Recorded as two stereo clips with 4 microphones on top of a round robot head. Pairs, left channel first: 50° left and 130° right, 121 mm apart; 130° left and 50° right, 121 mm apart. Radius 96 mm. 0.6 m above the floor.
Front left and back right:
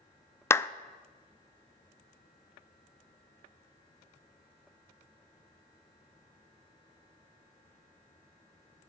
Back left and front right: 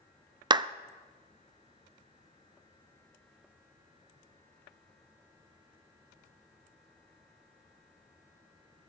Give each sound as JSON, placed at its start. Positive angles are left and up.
{"t": 0.5, "sound": "a clap", "azimuth_deg": -15, "distance_m": 0.5}